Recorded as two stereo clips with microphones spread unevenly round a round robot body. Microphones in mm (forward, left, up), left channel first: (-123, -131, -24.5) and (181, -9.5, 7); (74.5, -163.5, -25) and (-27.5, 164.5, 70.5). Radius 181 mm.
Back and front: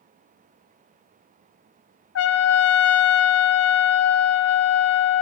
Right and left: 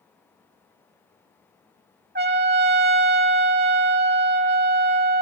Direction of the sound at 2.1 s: 175° left.